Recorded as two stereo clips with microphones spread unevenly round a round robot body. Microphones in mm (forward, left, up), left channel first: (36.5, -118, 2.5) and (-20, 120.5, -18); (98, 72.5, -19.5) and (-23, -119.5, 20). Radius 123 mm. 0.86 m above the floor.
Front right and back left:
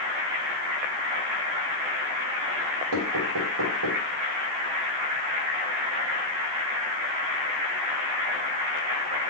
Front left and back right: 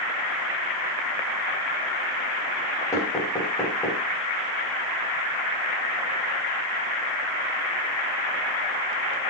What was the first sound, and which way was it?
Knocking, 135° left.